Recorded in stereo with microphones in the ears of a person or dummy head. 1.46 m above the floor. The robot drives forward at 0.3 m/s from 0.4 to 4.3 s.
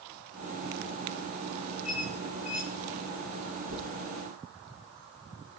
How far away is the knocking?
About 4 m.